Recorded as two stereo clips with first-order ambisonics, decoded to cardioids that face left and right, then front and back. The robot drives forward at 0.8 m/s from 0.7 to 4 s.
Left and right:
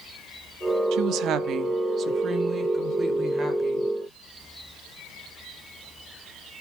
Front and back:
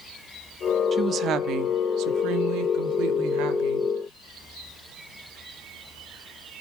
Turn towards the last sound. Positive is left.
turn(degrees=-165)